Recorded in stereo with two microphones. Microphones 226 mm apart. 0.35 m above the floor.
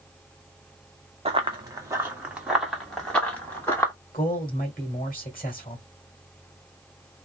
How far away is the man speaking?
About 1.8 m.